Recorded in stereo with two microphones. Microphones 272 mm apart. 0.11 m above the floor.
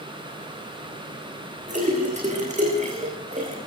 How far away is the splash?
About 8.5 m.